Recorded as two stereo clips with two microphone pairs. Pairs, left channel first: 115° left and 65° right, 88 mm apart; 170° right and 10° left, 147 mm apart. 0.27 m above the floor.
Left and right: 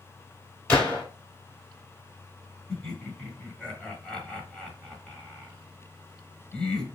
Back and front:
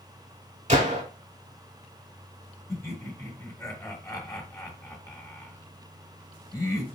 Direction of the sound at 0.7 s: 40° left.